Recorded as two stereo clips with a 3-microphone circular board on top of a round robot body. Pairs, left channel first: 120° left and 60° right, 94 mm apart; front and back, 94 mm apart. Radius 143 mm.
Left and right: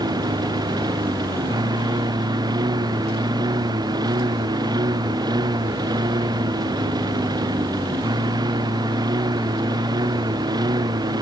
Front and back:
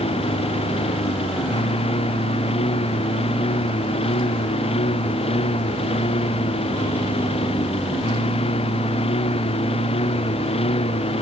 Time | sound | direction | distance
0.0 | a lawn mower | 15° right | ?